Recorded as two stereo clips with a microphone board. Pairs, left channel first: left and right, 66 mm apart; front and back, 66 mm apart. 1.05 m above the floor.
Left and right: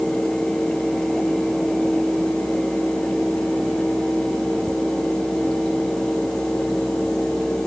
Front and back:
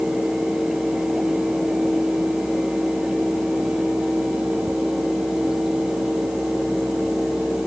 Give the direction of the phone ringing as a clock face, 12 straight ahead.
I don't hear a phone ringing.